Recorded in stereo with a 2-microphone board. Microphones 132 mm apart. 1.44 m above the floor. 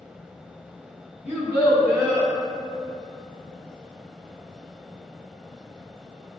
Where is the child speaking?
55° left (ahead or behind), 0.9 m; by 2.3 s 35° right (ahead or behind), 0.7 m.